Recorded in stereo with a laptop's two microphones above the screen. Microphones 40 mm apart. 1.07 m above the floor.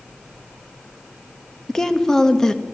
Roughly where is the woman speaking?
Centre.